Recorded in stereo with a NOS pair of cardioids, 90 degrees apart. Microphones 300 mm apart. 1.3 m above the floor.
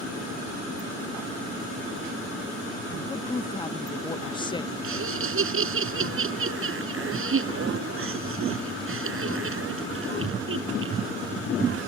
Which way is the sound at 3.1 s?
15° left.